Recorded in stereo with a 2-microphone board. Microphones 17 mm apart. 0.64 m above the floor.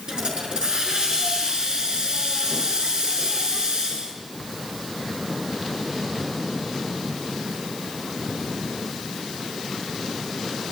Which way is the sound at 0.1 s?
45° right (ahead or behind).